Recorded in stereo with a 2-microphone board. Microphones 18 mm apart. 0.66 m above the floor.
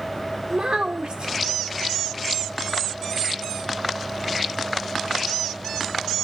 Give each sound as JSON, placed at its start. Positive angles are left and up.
{"t": 0.5, "sound": "a child speaking", "side_deg": -65, "distance_m": 1.1}